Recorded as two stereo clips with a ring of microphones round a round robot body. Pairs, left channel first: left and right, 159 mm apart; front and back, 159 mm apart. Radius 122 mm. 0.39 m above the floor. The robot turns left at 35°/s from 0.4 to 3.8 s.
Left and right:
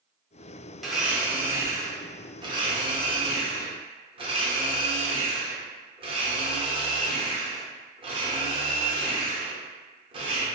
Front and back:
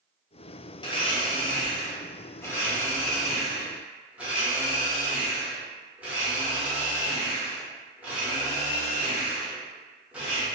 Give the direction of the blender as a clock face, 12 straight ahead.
12 o'clock.